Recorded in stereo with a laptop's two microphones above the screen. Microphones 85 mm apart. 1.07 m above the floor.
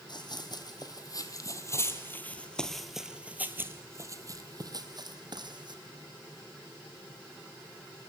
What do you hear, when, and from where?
0.1 s running footsteps: 60° left (ahead or behind), 2 m; by 5.8 s 60° right (ahead or behind), 2.5 m